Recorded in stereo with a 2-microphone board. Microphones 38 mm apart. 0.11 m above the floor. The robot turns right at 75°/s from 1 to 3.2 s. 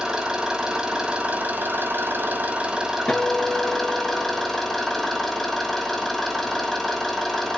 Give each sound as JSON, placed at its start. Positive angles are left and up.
{"t": 0.0, "sound": "an engine running", "azimuth_deg": -155, "distance_m": 1.6}
{"t": 3.1, "sound": "a guitar", "side_deg": 30, "distance_m": 1.0}